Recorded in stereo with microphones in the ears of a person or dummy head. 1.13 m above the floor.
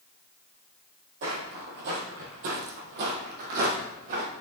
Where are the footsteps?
45° right (ahead or behind), 1.7 m; by 4.3 s 30° right (ahead or behind), 2.5 m.